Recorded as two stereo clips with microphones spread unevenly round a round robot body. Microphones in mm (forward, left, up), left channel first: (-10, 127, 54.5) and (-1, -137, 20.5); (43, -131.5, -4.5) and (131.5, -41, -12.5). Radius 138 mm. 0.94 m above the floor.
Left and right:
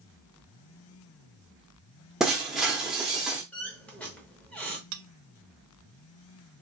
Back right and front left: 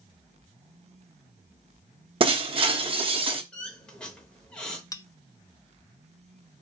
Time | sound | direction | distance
2.2 | breaking glass | 5° left | 0.7 m
3.5 | a squeak | 160° left | 0.7 m
4.9 | a bell | 65° right | 0.5 m